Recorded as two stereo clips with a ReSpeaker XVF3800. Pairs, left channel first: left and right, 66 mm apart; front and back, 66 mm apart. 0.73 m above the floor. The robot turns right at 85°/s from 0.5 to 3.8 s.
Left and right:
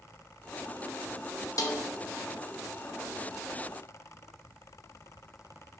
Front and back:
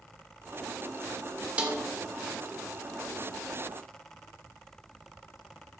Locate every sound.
1.6 s a snare drum: 110° left, 0.8 m; by 1.8 s 130° left, 0.8 m